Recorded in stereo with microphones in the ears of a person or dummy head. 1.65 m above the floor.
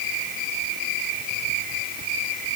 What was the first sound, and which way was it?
Only background noise.